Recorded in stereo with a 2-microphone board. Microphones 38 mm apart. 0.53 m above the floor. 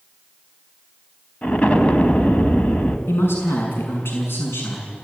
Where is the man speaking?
80° left, 6 m.